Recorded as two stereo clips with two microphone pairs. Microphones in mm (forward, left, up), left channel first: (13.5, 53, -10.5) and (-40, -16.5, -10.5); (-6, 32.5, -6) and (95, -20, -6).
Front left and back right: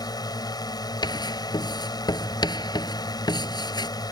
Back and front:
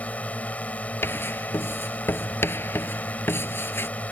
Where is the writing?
85° left.